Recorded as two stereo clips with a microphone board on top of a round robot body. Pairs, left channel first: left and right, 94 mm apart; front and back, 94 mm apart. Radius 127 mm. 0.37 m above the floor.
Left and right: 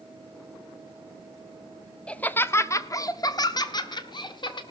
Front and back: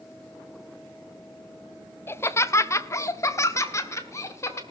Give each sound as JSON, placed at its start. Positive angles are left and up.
{"t": 2.1, "sound": "laughter", "azimuth_deg": 25, "distance_m": 0.8}